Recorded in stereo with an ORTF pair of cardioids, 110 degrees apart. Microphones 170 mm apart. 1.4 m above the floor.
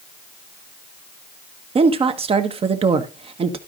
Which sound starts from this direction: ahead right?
A woman speaking, at 1.8 s.